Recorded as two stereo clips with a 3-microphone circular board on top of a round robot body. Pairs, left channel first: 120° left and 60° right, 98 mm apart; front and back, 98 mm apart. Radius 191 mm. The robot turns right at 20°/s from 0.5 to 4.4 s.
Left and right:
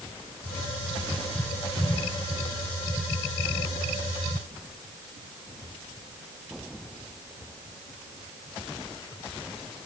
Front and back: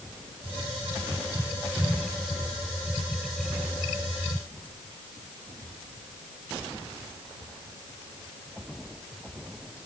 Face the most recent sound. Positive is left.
No sound to turn to.